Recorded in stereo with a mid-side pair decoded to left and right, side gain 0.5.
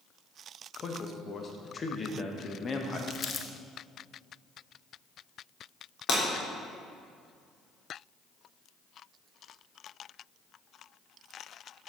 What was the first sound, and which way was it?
A man speaking, 35° left.